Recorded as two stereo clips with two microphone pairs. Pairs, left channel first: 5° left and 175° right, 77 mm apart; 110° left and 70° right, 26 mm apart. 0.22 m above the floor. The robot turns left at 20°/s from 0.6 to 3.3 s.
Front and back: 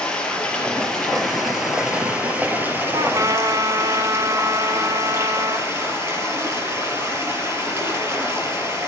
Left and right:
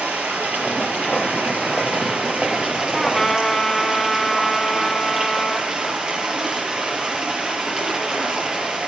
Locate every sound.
0.0 s running water: 75° right, 4 m; by 8.9 s 125° right, 4 m
2.9 s a trumpet: 165° right, 0.9 m; by 5.7 s 175° right, 0.9 m